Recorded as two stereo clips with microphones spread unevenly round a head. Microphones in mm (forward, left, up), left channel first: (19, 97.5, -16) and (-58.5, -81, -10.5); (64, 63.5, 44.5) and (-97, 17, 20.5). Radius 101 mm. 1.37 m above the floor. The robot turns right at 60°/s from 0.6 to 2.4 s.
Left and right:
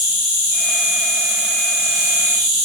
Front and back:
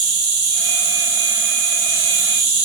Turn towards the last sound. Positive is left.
turn(degrees=-115)